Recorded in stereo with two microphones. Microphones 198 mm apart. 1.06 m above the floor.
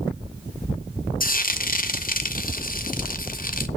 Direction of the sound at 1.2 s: 45° left (ahead or behind).